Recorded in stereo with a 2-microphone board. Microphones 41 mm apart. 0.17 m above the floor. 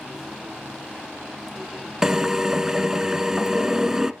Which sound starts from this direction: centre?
A drill, at 2.0 s.